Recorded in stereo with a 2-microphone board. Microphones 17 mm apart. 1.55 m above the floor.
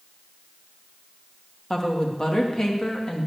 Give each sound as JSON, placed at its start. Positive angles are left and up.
{"t": 1.7, "sound": "a woman speaking", "side_deg": 30, "distance_m": 3.0}